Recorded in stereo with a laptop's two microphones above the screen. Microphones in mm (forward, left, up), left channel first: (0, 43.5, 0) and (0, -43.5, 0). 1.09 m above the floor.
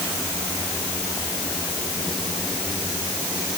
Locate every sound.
Only background noise.